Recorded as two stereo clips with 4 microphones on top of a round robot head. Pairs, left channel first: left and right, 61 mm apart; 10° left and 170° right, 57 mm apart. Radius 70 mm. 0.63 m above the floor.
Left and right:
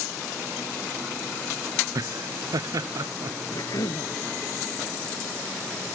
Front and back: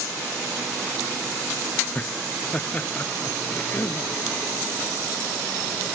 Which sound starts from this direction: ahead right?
Laughter, at 1.9 s.